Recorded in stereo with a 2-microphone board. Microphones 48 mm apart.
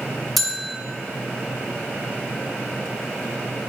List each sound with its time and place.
0.4 s a bell: centre (ahead or behind), 0.7 m